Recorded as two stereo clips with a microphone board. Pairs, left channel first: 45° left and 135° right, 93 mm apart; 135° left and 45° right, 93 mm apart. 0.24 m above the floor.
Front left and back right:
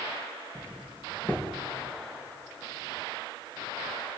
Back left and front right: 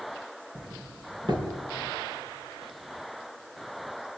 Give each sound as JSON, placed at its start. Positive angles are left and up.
{"t": 0.6, "sound": "a doorbell", "azimuth_deg": -25, "distance_m": 4.0}